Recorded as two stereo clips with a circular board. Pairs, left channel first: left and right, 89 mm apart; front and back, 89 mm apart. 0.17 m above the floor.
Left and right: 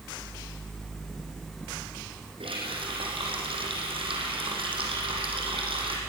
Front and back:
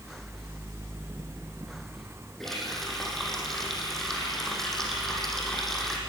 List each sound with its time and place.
2.4 s a running tap: 85° right, 4 m